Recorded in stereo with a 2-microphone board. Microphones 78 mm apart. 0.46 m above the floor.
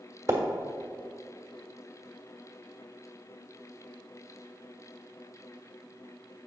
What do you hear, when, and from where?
0.3 s a splash: 35° right (ahead or behind), 1.3 m